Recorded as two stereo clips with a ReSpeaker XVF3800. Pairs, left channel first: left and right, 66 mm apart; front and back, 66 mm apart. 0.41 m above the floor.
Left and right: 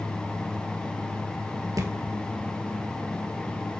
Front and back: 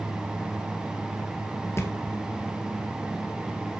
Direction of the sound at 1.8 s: 55° right.